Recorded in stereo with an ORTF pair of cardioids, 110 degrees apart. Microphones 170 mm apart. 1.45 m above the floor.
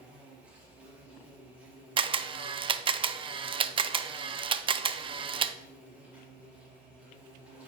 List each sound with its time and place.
0.0 s an insect: 10° right, 4 m
2.0 s a camera shutter: 30° right, 0.5 m